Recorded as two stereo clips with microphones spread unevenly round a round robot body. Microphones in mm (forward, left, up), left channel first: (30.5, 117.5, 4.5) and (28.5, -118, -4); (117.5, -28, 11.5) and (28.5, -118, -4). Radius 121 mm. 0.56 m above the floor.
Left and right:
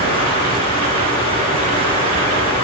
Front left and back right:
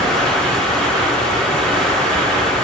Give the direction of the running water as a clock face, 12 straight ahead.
1 o'clock.